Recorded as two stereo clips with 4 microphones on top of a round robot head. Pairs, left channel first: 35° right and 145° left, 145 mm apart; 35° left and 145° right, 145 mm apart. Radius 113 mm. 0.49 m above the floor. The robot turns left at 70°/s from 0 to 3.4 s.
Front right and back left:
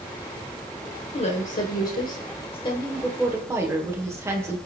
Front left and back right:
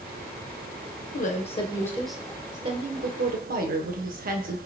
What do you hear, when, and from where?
1.1 s a woman speaking: 15° left, 1.9 m; by 4.6 s 145° right, 1.9 m